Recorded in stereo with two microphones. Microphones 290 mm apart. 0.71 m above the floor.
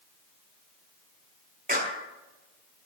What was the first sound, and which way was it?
A clap, 30° right (ahead or behind).